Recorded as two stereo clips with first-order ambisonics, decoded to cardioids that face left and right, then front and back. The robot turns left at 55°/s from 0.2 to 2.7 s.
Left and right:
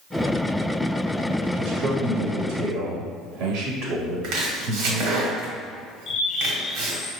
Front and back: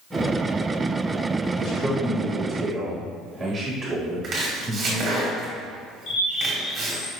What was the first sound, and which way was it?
A man speaking, 40° right.